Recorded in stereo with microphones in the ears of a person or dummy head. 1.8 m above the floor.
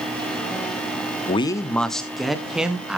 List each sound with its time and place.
1.3 s a man speaking: 30° left (ahead or behind), 0.7 m; by 3.0 s 5° right (ahead or behind), 2.5 m